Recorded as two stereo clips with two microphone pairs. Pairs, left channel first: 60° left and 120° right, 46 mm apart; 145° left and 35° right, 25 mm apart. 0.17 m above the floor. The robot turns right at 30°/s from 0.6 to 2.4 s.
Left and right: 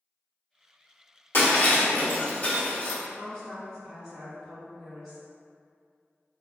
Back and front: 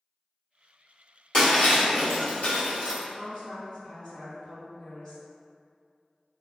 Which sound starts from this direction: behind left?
A woman speaking, at 3.1 s.